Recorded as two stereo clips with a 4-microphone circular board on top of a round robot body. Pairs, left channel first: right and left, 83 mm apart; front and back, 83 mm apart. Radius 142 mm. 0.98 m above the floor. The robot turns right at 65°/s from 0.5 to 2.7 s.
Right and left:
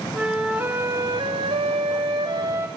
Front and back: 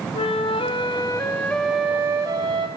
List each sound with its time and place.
0.1 s a flute: 10° left, 1.2 m; by 2.7 s 155° left, 1.2 m